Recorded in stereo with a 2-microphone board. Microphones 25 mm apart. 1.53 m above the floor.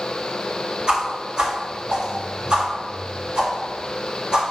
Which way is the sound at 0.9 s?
45° right (ahead or behind).